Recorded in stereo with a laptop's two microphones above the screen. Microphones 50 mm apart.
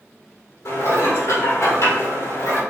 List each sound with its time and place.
0.7 s dishes clattering: 75° left (ahead or behind), 1.9 m